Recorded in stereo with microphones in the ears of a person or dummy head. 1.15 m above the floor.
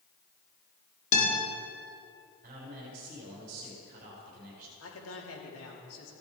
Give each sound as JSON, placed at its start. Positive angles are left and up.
{"t": 1.1, "sound": "a guitar", "side_deg": 40, "distance_m": 3.5}
{"t": 2.4, "sound": "a man speaking", "side_deg": -45, "distance_m": 3.5}
{"t": 4.8, "sound": "a man speaking", "side_deg": 75, "distance_m": 3.0}